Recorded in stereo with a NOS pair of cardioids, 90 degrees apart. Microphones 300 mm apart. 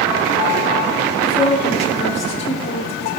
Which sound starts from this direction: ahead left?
A woman speaking, at 1.2 s.